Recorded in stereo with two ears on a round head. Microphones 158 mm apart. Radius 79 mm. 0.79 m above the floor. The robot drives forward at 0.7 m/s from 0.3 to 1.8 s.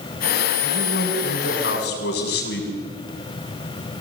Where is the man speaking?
60° left (ahead or behind), 7.5 m; by 2.7 s 65° left (ahead or behind), 7 m.